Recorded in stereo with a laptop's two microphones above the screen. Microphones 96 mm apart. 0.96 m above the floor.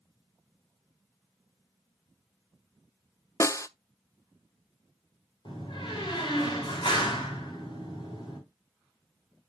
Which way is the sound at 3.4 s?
30° left (ahead or behind).